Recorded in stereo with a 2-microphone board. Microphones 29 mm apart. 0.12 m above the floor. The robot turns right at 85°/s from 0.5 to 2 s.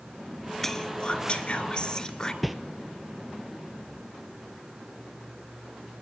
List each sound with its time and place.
0.6 s whispering: 20° left, 1.9 m; by 2.3 s 135° left, 1.9 m
2.4 s a whoosh: 5° right (ahead or behind), 1.1 m